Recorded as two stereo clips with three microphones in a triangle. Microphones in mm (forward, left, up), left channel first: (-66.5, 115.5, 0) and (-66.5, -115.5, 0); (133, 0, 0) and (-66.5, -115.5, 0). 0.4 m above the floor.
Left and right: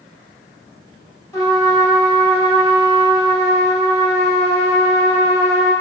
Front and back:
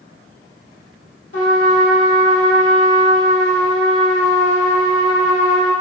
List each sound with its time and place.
1.3 s a trumpet: 20° left, 1.3 m